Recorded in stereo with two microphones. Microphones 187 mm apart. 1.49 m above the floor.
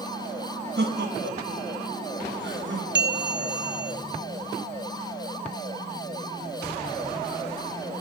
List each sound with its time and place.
0.8 s laughter: 65° right (ahead or behind), 1.9 m; by 2.9 s 85° right, 2.5 m
3.0 s a bell: 70° right (ahead or behind), 0.7 m